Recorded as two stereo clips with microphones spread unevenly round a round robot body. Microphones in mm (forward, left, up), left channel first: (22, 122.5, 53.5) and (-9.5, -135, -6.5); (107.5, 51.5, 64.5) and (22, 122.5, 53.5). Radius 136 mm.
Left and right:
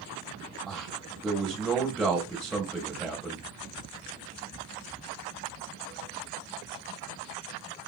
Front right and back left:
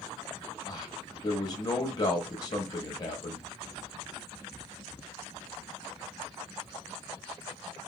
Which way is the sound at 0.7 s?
30° right.